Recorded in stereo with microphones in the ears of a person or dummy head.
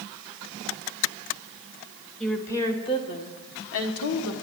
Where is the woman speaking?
10° left (ahead or behind), 1.7 m; by 4.3 s 80° left, 1.4 m.